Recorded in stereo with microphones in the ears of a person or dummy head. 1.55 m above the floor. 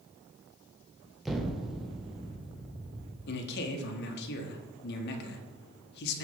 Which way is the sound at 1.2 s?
Centre (ahead or behind).